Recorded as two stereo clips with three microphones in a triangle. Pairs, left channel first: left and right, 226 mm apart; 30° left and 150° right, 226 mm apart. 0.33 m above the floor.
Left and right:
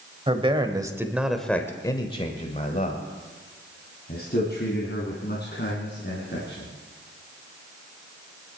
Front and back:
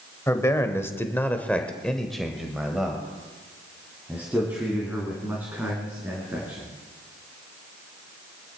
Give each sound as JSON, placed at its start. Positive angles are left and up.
{"t": 0.3, "sound": "a man speaking", "azimuth_deg": -40, "distance_m": 1.3}